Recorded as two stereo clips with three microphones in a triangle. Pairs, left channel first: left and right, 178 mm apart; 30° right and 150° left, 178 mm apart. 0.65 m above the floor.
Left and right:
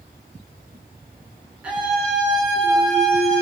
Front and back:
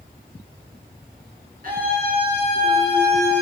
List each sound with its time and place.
1.6 s a scream: 175° right, 6 m; by 3.4 s 175° left, 6.5 m